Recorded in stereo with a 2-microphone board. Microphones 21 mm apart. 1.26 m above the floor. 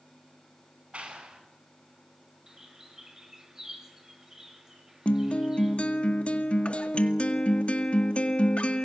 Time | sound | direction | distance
0.9 | a clap | 75° right (ahead or behind) | 10 m
2.5 | a bird | 20° right (ahead or behind) | 8 m
5.0 | a guitar | 75° left (ahead or behind) | 2 m